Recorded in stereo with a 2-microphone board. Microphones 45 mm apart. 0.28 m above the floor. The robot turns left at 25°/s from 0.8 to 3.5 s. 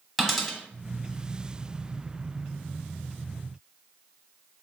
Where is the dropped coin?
5° left (ahead or behind), 0.8 m.